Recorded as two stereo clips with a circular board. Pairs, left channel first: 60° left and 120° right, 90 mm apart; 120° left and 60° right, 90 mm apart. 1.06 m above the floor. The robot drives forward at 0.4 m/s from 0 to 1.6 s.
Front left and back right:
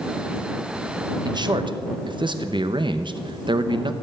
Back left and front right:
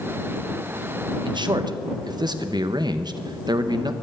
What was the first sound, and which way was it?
A man speaking, 85° right.